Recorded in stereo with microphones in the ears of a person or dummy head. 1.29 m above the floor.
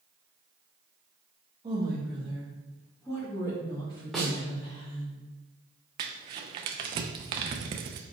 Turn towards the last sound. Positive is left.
turn(degrees=-25)  # may be behind; listen again after turning